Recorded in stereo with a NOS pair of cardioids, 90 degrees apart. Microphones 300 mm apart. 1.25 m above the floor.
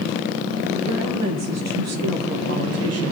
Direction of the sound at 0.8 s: 60° right.